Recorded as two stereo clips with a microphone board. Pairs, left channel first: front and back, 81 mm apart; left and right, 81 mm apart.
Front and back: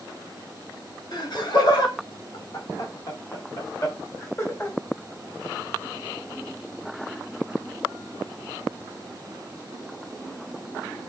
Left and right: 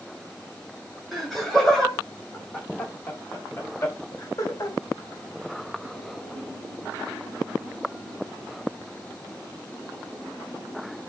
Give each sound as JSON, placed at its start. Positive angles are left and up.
{"t": 1.1, "sound": "laughter", "azimuth_deg": 0, "distance_m": 2.5}